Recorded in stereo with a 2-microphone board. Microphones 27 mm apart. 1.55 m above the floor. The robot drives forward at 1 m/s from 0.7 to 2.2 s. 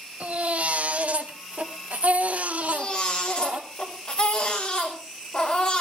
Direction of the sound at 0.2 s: 65° right (ahead or behind).